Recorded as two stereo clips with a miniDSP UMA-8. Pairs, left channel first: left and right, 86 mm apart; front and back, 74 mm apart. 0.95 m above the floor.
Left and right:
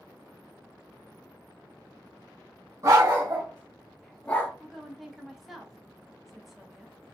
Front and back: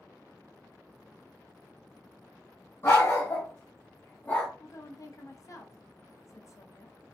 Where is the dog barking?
50° right, 1.5 m; by 4.5 s 65° left, 0.7 m.